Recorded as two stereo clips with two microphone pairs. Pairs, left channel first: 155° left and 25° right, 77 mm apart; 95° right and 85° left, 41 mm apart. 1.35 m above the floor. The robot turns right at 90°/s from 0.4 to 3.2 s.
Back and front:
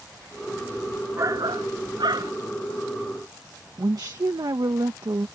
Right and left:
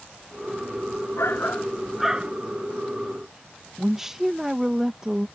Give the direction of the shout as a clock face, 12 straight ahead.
3 o'clock.